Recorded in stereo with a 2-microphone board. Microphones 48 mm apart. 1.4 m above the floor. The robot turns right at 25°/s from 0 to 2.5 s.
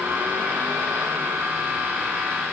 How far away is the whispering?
No whispering in this recording.